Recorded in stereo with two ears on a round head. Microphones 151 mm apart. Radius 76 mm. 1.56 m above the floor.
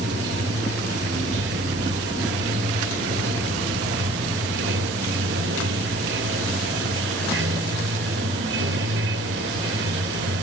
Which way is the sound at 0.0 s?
75° right (ahead or behind).